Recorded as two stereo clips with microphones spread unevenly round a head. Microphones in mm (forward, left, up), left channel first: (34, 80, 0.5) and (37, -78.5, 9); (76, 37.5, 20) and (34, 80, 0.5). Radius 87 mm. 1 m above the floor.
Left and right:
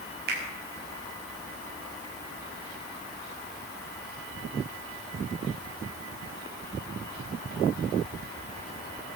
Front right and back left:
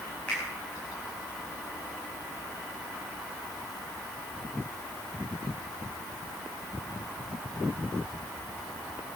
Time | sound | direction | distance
0.3 | a finger snap | 130° right | 5.5 m